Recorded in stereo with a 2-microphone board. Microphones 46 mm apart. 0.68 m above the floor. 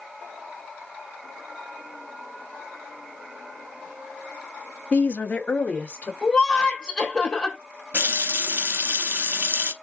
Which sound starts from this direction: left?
A woman speaking, at 4.9 s.